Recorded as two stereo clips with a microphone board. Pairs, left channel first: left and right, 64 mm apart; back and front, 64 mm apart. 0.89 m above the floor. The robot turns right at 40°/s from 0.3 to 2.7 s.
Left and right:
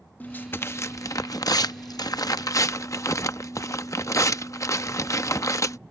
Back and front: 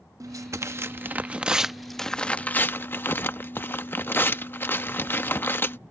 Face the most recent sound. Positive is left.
turn(degrees=125)